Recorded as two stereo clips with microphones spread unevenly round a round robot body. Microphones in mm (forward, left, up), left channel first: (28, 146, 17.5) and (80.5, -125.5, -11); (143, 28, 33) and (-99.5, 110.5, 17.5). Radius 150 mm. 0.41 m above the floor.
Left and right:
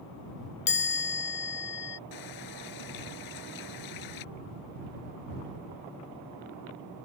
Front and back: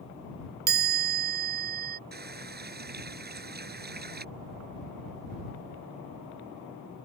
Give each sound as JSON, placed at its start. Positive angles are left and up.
{"t": 0.7, "sound": "a chime", "azimuth_deg": 145}
{"t": 2.1, "sound": "a running tap", "azimuth_deg": 110}